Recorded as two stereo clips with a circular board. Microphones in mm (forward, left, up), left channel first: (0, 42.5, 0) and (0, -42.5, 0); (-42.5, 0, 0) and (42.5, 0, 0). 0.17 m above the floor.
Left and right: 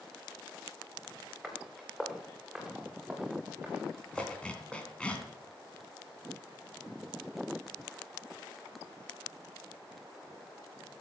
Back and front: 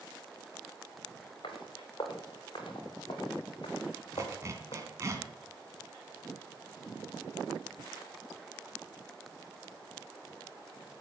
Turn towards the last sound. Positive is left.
turn(degrees=20)